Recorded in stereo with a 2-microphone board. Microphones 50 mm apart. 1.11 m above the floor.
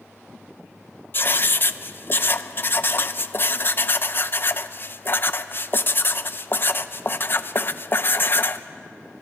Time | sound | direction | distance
1.1 | writing | 45° left (ahead or behind) | 0.6 m